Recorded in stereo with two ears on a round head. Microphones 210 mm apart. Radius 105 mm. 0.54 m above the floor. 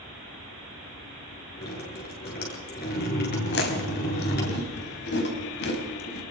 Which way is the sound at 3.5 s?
50° left (ahead or behind).